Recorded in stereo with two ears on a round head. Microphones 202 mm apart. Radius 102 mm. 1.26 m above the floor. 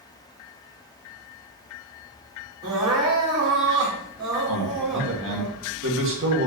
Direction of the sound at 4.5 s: 60° right (ahead or behind).